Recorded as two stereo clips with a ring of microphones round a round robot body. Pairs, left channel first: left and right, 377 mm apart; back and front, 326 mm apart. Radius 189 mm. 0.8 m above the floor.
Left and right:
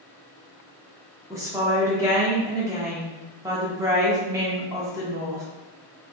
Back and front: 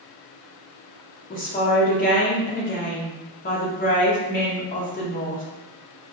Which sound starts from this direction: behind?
A woman speaking, at 1.3 s.